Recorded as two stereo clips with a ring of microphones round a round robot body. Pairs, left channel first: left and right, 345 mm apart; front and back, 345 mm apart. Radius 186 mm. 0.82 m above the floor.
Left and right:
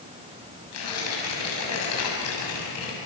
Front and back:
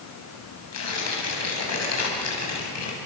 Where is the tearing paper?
40° left, 6.5 m.